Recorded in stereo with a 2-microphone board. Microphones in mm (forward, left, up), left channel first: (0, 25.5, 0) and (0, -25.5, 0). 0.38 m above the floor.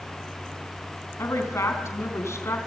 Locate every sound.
1.2 s a woman speaking: 70° left (ahead or behind), 4 m; by 2.6 s 65° left (ahead or behind), 4 m